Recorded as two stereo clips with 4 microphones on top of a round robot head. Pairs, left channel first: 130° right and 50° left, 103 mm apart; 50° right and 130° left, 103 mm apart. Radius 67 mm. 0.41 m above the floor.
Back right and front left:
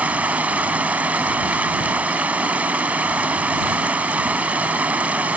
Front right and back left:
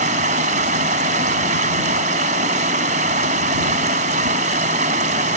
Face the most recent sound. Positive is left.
turn(degrees=130)